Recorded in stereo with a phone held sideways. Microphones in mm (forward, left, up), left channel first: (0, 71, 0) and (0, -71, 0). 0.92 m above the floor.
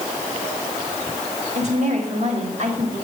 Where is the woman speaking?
50° right (ahead or behind), 2.5 m.